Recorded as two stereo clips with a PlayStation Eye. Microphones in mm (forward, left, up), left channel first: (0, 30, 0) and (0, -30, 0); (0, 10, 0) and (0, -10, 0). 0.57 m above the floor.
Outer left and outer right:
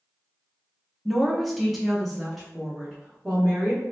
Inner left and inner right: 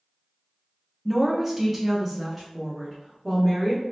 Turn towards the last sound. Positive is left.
turn(degrees=0)  # may be behind; listen again after turning